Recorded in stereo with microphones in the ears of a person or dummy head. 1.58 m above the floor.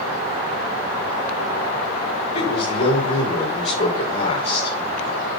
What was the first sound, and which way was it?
A man speaking, 40° left (ahead or behind).